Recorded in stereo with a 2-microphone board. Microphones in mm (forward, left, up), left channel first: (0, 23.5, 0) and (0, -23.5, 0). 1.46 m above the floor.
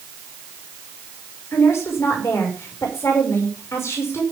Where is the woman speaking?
80° left, 6 m.